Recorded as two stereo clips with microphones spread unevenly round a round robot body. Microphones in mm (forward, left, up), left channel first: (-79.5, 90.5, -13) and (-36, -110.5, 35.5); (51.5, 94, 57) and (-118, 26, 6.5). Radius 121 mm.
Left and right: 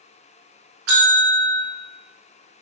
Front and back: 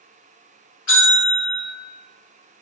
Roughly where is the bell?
Ahead right.